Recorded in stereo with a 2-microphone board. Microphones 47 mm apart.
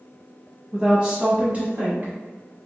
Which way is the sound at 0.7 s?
15° right (ahead or behind).